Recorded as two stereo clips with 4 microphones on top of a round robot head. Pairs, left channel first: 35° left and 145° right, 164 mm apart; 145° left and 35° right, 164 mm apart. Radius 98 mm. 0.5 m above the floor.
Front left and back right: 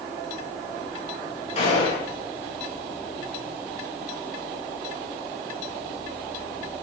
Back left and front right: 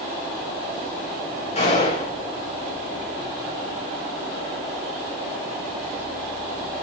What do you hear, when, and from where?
1.6 s a gunshot: 90° left, 9.5 m